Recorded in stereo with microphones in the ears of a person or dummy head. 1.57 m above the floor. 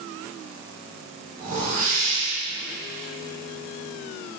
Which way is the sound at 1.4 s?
45° right (ahead or behind).